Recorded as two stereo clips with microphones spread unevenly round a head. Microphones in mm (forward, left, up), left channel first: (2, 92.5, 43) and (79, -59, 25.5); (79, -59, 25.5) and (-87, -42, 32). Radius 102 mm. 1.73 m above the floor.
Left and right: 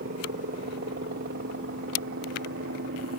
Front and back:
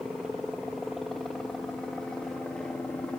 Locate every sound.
0.0 s a helicopter: 100° right; by 3.2 s 90° right